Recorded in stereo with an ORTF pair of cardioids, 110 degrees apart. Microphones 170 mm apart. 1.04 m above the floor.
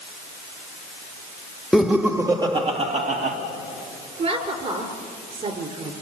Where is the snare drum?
I don't hear a snare drum.